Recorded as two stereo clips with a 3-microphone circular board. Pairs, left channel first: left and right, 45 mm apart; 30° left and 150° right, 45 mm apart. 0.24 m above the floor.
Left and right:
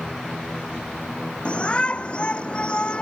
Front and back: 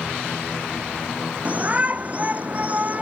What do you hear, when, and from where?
1.4 s a shout: 155° left